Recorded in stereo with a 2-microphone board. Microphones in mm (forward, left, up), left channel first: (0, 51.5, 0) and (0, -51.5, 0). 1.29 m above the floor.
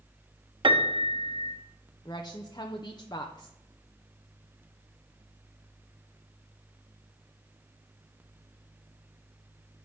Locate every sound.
0.6 s a piano: 50° right (ahead or behind), 0.9 m
2.0 s a woman speaking: 45° left (ahead or behind), 0.7 m